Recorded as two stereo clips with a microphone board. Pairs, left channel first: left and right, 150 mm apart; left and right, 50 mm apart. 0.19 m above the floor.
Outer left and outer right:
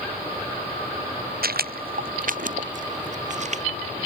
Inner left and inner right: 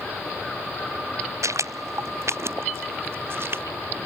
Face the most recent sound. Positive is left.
turn(degrees=-50)  # may be behind; listen again after turning